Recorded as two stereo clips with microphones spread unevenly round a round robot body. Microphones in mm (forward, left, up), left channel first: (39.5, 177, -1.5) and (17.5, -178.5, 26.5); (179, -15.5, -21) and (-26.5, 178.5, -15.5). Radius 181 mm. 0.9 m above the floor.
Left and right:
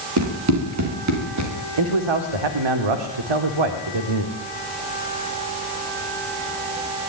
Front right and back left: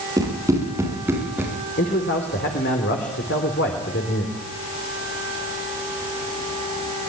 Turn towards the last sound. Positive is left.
turn(degrees=-105)